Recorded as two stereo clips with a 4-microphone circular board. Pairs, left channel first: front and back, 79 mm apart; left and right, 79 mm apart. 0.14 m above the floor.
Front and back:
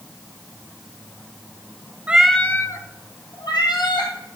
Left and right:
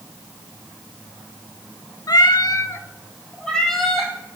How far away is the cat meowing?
About 0.5 m.